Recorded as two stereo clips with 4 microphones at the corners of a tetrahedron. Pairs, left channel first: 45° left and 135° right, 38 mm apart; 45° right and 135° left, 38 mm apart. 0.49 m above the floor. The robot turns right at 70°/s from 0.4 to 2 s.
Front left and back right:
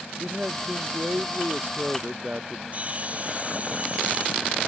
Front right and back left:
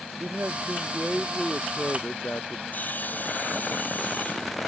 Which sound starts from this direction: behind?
A man speaking, at 0.2 s.